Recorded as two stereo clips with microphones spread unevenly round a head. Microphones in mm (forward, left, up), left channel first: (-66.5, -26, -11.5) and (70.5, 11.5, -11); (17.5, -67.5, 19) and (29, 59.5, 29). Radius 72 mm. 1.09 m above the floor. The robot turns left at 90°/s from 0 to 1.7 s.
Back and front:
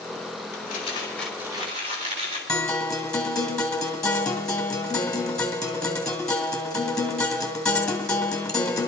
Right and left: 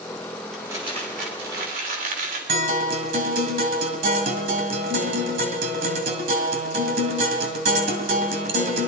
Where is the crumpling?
175° left, 3 m; by 2.4 s 70° left, 3 m.